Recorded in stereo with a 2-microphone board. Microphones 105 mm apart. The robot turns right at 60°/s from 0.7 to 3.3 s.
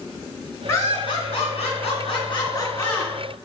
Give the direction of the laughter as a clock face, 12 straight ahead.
11 o'clock.